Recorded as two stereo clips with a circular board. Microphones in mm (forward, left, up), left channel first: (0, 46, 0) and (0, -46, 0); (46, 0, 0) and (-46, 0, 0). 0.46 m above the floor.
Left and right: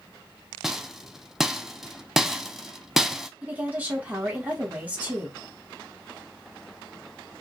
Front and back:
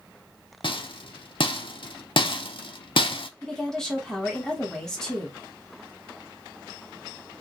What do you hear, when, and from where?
0.6 s a rattle: 5° right, 0.5 m
3.4 s a woman speaking: 65° right, 1.3 m